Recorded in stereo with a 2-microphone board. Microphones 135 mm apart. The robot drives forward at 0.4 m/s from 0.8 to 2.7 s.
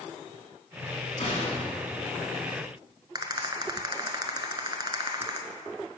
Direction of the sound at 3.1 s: 30° right (ahead or behind).